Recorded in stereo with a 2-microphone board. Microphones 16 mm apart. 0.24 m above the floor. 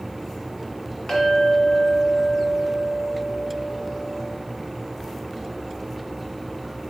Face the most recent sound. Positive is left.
turn(degrees=60)  # may be behind; listen again after turning